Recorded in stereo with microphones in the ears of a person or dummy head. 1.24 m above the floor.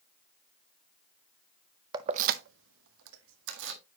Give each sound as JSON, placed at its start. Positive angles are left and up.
{"t": 1.9, "sound": "keys jangling", "side_deg": -20, "distance_m": 0.6}